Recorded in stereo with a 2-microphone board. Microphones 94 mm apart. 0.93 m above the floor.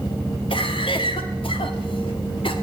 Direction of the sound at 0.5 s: 70° left (ahead or behind).